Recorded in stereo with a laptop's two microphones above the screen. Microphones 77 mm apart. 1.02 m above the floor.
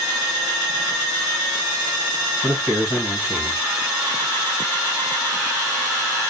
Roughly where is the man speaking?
Left.